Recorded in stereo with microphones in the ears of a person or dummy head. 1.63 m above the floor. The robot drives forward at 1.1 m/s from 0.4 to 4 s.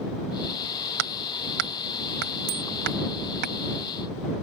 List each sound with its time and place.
1.0 s hammering: 80° right; by 3.5 s 55° right (ahead or behind)
2.5 s a bicycle bell: 80° right